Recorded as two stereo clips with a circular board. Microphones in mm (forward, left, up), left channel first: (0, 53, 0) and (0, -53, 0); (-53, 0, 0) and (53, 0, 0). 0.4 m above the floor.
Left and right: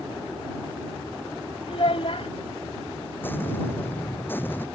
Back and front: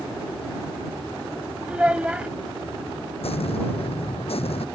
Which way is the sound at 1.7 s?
80° left.